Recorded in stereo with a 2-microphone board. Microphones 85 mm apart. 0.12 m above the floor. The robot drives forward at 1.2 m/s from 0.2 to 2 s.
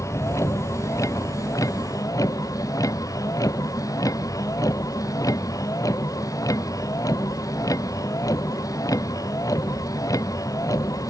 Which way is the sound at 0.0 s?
35° left (ahead or behind).